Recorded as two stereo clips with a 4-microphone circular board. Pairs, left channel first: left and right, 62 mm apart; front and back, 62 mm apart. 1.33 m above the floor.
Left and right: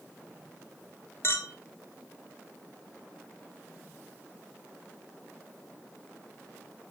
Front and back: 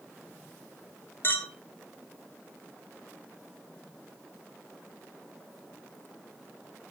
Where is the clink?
50° left, 1.6 m.